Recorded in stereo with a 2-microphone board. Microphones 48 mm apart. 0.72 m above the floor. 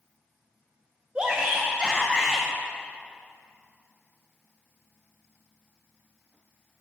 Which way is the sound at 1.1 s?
20° right (ahead or behind).